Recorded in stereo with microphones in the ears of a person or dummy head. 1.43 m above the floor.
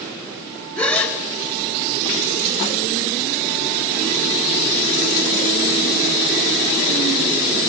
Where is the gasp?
5° left (ahead or behind), 2.5 m.